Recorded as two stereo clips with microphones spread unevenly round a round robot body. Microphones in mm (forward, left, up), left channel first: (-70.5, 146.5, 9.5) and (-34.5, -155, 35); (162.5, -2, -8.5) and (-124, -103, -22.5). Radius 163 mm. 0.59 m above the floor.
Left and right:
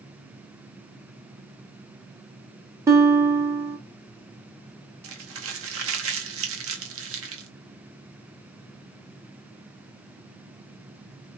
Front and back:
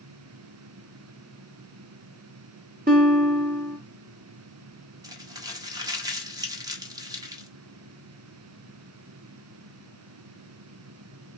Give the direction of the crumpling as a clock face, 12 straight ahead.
3 o'clock.